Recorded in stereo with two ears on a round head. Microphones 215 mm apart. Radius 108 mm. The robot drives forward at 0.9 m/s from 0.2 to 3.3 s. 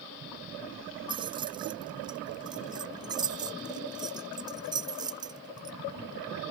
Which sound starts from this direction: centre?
Keys jangling, at 1.1 s.